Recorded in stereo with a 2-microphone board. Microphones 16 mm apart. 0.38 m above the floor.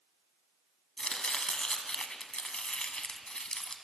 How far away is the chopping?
About 0.7 m.